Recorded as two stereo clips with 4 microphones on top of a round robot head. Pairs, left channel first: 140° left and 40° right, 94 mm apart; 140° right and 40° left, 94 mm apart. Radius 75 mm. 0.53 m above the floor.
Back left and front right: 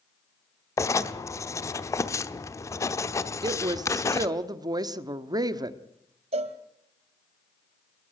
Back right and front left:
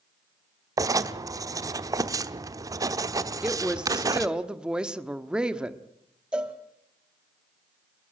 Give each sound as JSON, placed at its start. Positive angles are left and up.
{"t": 0.8, "sound": "writing", "azimuth_deg": 85, "distance_m": 1.0}
{"t": 3.4, "sound": "a woman speaking", "azimuth_deg": -40, "distance_m": 1.3}
{"t": 6.3, "sound": "a cowbell", "azimuth_deg": -40, "distance_m": 1.5}